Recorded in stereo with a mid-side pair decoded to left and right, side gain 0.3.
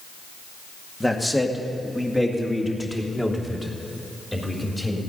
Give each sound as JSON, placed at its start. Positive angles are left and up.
{"t": 1.0, "sound": "a man speaking", "azimuth_deg": 10, "distance_m": 2.0}